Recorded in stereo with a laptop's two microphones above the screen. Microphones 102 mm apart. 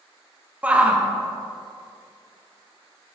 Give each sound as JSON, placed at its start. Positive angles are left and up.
{"t": 0.6, "sound": "a shout", "side_deg": -10, "distance_m": 0.6}